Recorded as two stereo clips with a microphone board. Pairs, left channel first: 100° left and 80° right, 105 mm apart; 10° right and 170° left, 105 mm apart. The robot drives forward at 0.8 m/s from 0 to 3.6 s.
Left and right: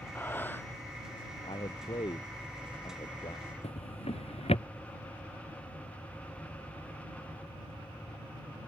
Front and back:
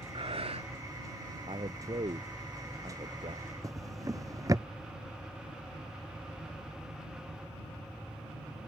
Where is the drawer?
115° left.